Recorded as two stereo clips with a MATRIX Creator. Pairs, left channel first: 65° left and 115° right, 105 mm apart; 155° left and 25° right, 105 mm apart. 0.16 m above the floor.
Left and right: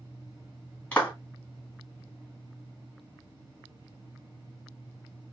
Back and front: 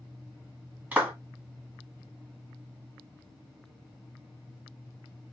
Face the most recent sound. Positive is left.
turn(degrees=20)